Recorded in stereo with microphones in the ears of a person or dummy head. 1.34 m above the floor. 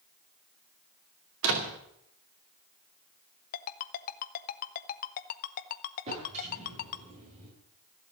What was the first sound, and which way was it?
A door slam, 80° right.